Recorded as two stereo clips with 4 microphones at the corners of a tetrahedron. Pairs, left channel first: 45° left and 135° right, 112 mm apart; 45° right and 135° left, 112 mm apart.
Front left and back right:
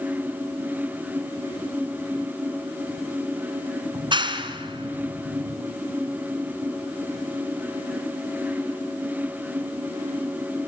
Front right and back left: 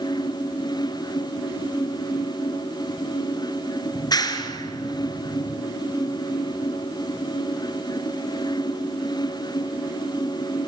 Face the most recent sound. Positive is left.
turn(degrees=-95)